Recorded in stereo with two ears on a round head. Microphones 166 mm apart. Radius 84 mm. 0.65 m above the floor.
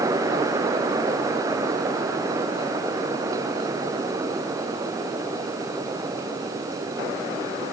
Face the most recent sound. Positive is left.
No sound to turn to.